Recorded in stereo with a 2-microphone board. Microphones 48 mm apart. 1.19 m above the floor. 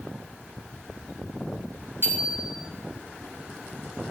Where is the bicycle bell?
55° right (ahead or behind), 5.5 m.